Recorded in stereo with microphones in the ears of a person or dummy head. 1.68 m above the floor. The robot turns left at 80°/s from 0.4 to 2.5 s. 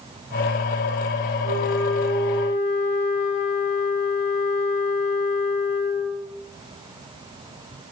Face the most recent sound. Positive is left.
turn(degrees=75)